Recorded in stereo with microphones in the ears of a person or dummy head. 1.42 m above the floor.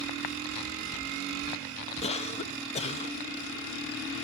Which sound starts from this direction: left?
A cough, at 2.0 s.